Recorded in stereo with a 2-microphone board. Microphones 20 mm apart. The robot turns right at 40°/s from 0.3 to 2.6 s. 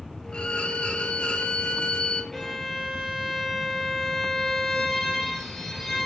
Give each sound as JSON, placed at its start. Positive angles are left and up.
{"t": 0.3, "sound": "a violin", "azimuth_deg": 65, "distance_m": 1.0}
{"t": 2.3, "sound": "a violin", "side_deg": 15, "distance_m": 1.9}